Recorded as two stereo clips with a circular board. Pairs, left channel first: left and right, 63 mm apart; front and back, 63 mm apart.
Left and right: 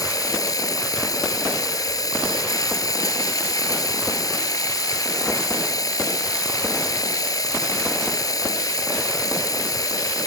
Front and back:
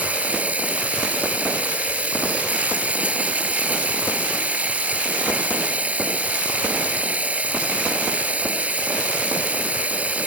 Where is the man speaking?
I don't hear a man speaking.